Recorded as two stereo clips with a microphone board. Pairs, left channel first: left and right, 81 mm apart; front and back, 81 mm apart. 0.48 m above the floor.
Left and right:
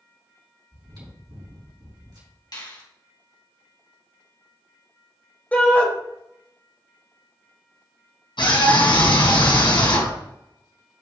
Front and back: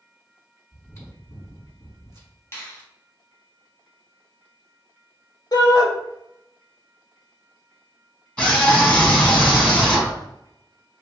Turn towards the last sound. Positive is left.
turn(degrees=75)